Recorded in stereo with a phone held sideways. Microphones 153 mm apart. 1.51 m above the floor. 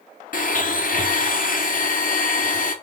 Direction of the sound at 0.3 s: 65° left (ahead or behind).